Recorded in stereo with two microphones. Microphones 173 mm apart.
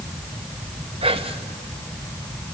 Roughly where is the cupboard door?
I don't hear a cupboard door.